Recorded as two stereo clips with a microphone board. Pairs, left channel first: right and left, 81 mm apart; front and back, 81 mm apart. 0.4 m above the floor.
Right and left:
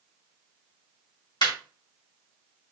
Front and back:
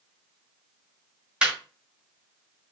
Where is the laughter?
105° right, 2.0 m.